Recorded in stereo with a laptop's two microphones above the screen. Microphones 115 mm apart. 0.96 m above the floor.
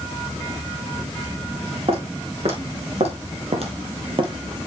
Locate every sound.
1.9 s footsteps: 60° right (ahead or behind), 4 m; by 4.7 s 25° right (ahead or behind), 1.3 m